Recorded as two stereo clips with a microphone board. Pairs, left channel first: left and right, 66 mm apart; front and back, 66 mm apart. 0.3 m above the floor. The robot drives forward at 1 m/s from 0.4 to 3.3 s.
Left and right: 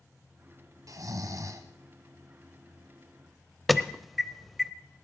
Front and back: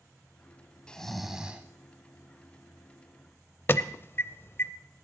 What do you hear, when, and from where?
0.9 s snoring: 75° right, 1.3 m; by 1.6 s 115° right, 1.3 m
3.7 s an alarm: straight ahead, 0.6 m